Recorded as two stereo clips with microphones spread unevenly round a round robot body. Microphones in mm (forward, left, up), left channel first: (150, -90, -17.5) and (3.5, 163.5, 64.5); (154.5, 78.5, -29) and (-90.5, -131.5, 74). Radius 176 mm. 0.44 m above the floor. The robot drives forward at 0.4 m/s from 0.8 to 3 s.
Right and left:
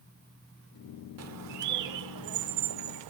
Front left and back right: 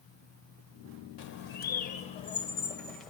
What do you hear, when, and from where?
1.2 s a bird: 75° left, 1.1 m; by 3.1 s 120° left, 1.1 m